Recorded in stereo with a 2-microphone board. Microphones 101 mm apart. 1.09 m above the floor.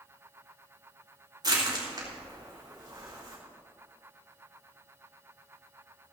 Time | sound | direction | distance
1.4 | crushing | 40° right (ahead or behind) | 4 m